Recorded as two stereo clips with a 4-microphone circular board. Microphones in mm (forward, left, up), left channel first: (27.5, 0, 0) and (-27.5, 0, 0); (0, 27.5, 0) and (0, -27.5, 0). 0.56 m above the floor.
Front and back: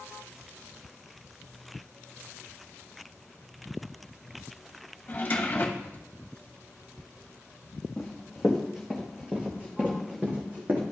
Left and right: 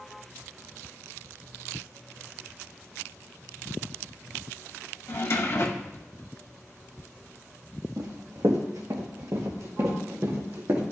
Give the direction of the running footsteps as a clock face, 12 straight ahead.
3 o'clock.